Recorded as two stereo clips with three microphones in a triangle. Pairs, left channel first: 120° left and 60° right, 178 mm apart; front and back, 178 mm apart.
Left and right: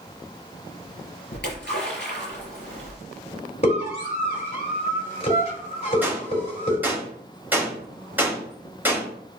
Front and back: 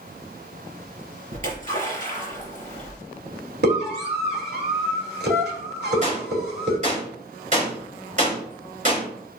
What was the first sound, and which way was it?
A splash, 135° left.